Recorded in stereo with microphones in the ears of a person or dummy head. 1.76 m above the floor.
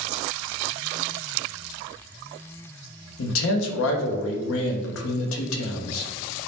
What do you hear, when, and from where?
3.2 s a man speaking: 75° left (ahead or behind), 0.6 m